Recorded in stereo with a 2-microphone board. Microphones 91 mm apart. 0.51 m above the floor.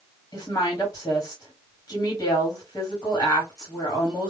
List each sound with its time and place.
0.3 s a woman speaking: 35° left (ahead or behind), 1.3 m